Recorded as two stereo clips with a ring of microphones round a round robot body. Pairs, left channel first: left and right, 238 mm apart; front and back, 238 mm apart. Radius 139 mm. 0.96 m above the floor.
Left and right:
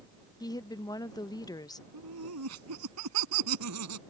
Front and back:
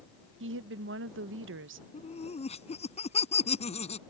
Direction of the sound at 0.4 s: 160° left.